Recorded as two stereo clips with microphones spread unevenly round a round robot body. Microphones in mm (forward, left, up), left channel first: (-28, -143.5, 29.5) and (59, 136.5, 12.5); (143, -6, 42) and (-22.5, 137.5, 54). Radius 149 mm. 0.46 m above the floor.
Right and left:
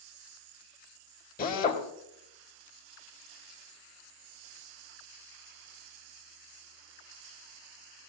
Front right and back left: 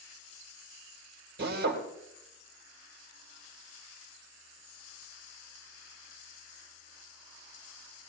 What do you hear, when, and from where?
1.4 s a drill: 170° right, 1.9 m